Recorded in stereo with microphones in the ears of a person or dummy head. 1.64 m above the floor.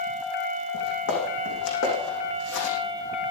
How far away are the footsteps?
About 6 m.